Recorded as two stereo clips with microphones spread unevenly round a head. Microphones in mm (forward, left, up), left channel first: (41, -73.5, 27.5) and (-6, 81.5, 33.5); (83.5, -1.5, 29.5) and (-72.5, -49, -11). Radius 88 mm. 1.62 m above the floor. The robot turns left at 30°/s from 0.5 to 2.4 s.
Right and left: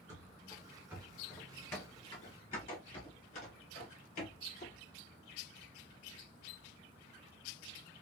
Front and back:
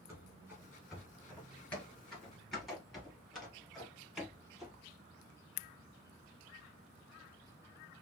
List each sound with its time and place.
0.1 s running footsteps: 110° left, 1.6 m; by 4.8 s 65° right, 2.5 m